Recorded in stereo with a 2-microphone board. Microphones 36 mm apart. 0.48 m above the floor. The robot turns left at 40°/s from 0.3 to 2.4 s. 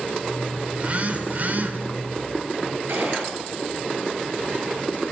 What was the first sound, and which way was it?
A phone buzzing, 50° right.